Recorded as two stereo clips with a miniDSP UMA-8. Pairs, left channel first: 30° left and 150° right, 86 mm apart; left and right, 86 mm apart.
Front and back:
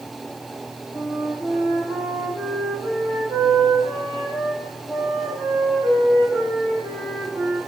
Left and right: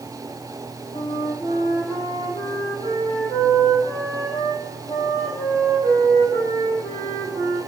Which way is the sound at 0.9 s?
135° left.